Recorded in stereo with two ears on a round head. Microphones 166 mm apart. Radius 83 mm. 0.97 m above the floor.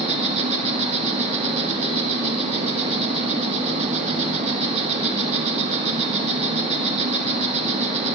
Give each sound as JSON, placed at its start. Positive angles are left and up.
{"t": 0.0, "sound": "an insect", "side_deg": -35, "distance_m": 1.5}